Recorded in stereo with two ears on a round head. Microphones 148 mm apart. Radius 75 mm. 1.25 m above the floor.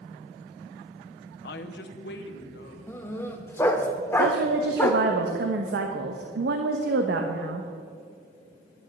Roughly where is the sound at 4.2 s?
Right.